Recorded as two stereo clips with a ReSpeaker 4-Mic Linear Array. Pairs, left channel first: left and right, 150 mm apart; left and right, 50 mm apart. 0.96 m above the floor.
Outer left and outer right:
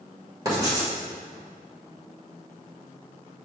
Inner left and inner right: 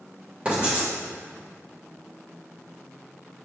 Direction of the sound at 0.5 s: 20° right (ahead or behind).